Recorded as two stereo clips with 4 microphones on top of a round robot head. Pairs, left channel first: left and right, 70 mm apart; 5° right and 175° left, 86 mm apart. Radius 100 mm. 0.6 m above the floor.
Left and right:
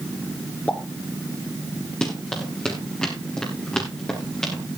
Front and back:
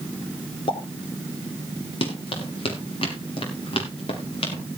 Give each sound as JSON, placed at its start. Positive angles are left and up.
{"t": 0.7, "sound": "a pop", "azimuth_deg": 20, "distance_m": 1.4}
{"t": 2.0, "sound": "running footsteps", "azimuth_deg": 10, "distance_m": 5.5}